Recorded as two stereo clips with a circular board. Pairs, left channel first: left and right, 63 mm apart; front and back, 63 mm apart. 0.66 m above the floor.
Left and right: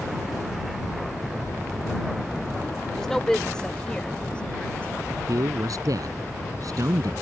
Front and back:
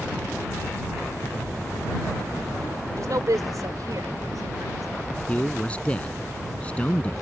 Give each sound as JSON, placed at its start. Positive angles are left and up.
{"t": 3.0, "sound": "a woman speaking", "azimuth_deg": 175}
{"t": 5.3, "sound": "a man speaking", "azimuth_deg": -70}